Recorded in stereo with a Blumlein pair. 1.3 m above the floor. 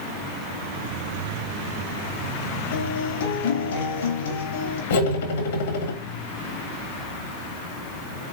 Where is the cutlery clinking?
65° left, 1.4 m.